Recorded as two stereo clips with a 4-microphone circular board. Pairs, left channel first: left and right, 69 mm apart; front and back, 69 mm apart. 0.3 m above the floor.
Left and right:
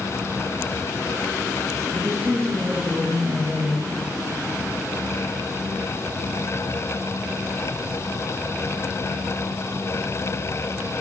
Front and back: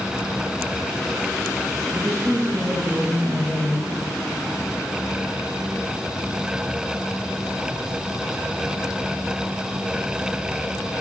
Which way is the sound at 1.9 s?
125° right.